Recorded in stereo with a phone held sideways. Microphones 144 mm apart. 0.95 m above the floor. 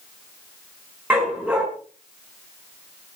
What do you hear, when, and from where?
1.1 s a dog barking: 10° right (ahead or behind), 4.5 m